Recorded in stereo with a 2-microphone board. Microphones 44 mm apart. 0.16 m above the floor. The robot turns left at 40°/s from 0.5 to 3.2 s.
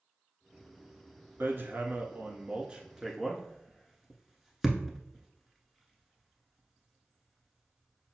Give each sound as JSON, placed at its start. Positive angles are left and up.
{"t": 1.4, "sound": "hammering", "side_deg": -60, "distance_m": 0.8}